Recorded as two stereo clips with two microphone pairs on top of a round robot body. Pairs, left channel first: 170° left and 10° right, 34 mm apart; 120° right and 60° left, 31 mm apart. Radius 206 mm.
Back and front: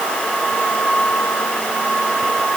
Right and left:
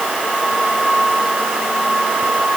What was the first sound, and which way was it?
Only background noise.